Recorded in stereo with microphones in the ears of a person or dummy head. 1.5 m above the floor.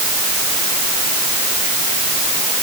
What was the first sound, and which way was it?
Only background noise.